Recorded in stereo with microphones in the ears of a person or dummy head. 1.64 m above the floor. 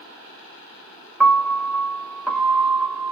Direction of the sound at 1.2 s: 5° right (ahead or behind).